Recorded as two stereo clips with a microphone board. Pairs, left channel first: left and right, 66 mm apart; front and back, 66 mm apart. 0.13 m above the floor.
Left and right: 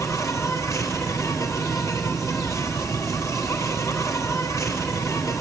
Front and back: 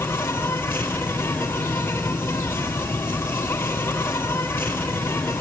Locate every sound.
0.0 s an insect: 55° left, 1.7 m